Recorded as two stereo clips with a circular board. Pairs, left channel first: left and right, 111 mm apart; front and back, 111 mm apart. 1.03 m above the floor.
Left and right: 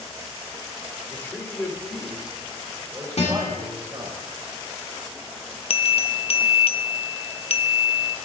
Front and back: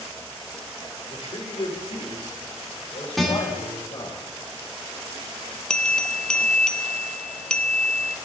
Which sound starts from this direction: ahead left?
A man speaking, at 1.1 s.